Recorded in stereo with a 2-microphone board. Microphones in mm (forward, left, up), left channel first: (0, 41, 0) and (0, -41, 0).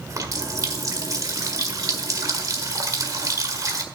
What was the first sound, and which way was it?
A running tap, 45° right (ahead or behind).